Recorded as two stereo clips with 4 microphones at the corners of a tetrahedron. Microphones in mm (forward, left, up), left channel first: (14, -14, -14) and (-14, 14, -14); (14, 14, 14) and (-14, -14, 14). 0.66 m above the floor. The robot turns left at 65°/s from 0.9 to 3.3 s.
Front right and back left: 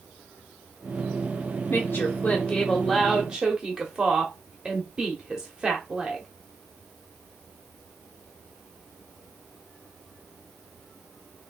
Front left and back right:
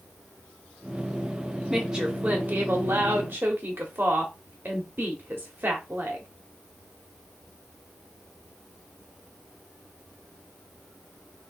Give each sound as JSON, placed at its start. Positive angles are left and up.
{"t": 1.7, "sound": "a woman speaking", "azimuth_deg": -50, "distance_m": 1.3}